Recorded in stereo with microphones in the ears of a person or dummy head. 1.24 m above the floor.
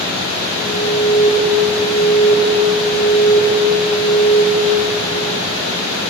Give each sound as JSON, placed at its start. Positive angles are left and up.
{"t": 0.6, "sound": "an alarm", "side_deg": 55, "distance_m": 1.6}